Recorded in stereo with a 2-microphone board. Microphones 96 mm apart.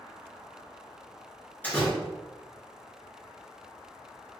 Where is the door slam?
20° left (ahead or behind), 1.3 m.